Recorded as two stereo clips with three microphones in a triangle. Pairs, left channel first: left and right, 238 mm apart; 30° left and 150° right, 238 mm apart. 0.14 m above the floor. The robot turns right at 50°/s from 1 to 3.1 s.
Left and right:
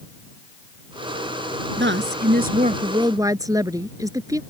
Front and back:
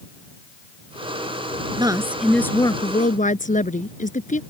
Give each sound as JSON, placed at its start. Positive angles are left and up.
{"t": 1.8, "sound": "a woman speaking", "azimuth_deg": -85}